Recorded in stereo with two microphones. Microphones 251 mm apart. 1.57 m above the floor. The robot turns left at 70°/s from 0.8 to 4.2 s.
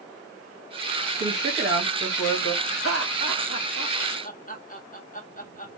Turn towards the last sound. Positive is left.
turn(degrees=30)  # may be behind; listen again after turning